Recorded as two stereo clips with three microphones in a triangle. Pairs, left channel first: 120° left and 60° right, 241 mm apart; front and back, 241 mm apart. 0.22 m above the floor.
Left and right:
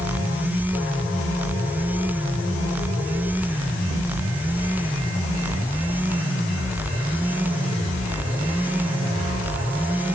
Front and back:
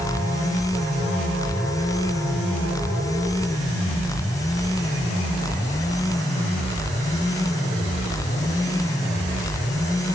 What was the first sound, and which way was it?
Only background noise.